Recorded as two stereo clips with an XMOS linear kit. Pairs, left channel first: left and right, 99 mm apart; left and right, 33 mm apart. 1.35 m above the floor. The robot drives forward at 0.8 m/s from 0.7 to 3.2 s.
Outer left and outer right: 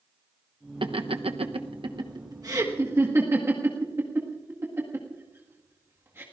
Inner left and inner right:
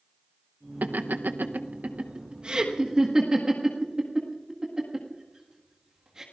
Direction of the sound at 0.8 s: 60° right (ahead or behind).